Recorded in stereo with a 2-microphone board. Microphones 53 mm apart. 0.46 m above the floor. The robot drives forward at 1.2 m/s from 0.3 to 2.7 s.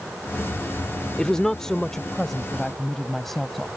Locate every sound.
1.2 s a woman speaking: 15° left (ahead or behind); by 3.7 s 5° left (ahead or behind)